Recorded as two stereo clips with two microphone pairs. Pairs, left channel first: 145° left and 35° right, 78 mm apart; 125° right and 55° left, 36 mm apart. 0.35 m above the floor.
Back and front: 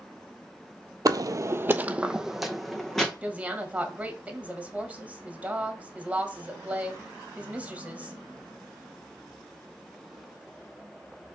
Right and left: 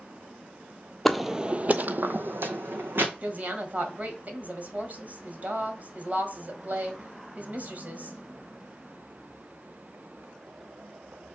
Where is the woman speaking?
35° left, 1.6 m.